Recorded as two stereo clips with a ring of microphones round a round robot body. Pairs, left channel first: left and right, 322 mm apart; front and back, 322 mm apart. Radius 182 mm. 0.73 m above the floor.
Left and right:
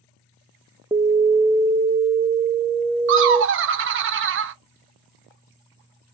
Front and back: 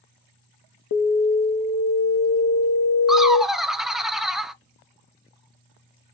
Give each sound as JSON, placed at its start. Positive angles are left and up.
{"t": 0.9, "sound": "an alarm", "azimuth_deg": -10, "distance_m": 0.5}
{"t": 3.1, "sound": "laughter", "azimuth_deg": -90, "distance_m": 0.5}